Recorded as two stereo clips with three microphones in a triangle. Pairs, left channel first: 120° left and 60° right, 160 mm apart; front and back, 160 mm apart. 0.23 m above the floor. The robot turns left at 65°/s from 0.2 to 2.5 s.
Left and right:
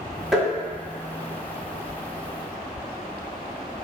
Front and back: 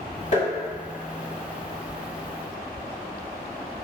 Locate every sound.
0.3 s tapping: 25° left, 1.8 m; by 0.5 s 15° left, 1.8 m